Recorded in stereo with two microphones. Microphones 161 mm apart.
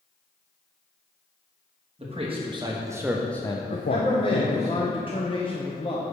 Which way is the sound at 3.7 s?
30° left (ahead or behind).